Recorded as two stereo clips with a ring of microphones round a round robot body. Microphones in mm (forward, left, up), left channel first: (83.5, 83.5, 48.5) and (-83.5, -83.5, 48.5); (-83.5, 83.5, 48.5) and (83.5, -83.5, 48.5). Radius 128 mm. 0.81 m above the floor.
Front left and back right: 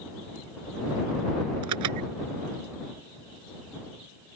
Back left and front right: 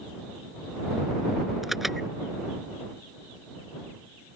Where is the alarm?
135° right.